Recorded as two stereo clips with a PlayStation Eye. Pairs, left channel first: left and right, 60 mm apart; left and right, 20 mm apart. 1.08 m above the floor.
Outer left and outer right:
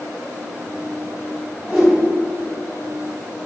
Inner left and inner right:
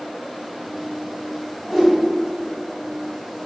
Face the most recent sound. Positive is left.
turn(degrees=-10)  # may be behind; listen again after turning